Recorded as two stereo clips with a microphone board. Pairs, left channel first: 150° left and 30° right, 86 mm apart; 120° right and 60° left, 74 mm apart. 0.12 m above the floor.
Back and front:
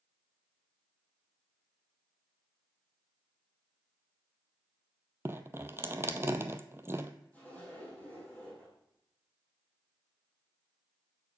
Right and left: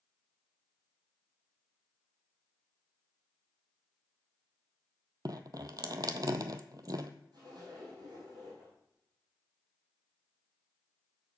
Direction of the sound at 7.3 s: 80° left.